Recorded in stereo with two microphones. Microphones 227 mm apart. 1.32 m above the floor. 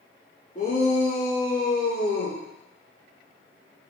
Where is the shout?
35° left (ahead or behind), 3 m; by 2.4 s 55° left (ahead or behind), 2 m.